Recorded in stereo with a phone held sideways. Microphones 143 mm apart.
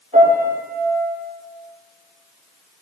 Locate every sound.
0.1 s a piano: 60° right (ahead or behind), 4.5 m